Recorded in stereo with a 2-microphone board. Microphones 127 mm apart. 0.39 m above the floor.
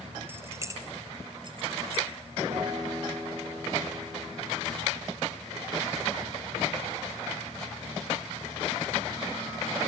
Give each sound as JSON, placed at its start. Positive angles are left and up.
{"t": 0.3, "sound": "keys jangling", "side_deg": -15, "distance_m": 1.7}
{"t": 2.5, "sound": "a guitar", "side_deg": -40, "distance_m": 7.0}